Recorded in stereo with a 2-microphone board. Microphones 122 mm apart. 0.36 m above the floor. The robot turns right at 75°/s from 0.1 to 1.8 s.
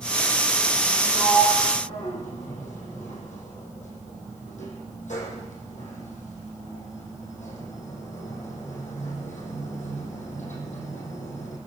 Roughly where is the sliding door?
Left.